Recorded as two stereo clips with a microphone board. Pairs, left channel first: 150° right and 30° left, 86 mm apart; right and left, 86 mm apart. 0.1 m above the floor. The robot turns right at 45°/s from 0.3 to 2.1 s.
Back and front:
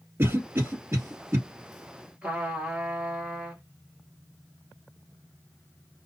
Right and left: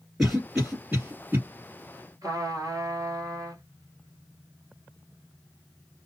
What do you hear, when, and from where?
0.2 s a cough: 10° left, 1.8 m; by 1.4 s 60° left, 1.8 m
2.2 s a trumpet: 100° left, 1.5 m